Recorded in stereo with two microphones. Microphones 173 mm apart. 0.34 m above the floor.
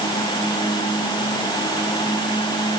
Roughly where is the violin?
I don't hear a violin.